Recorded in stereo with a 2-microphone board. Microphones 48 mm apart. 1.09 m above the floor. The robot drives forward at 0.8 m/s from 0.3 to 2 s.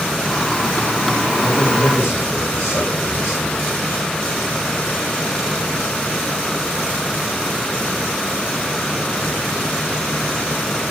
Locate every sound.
1.4 s a man speaking: 50° left (ahead or behind), 6.5 m; by 3.7 s 55° left (ahead or behind), 6 m